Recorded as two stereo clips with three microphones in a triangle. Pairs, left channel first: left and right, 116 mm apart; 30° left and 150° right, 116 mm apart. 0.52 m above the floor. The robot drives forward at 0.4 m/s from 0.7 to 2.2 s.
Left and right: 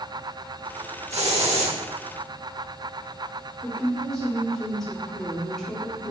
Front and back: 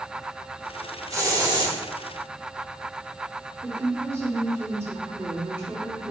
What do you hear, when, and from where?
1.1 s a hiss: 90° right, 1.0 m; by 1.8 s 105° right, 1.0 m
3.6 s a woman speaking: 170° left, 1.4 m